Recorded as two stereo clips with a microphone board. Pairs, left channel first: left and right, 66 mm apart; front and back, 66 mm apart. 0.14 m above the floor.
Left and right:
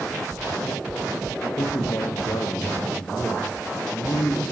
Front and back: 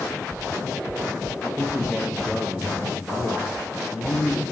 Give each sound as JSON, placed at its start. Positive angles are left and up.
{"t": 1.4, "sound": "a man speaking", "azimuth_deg": 110, "distance_m": 4.0}